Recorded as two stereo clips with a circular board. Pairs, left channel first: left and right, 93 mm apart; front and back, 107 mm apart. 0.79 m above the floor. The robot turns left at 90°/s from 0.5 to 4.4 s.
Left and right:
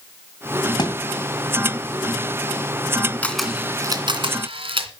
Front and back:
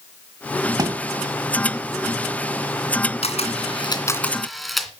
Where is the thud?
130° left, 1.9 m; by 1.0 s 115° left, 1.9 m.